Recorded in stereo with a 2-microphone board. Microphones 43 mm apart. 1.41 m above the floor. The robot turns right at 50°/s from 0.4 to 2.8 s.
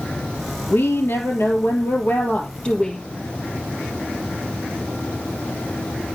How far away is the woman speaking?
About 3 m.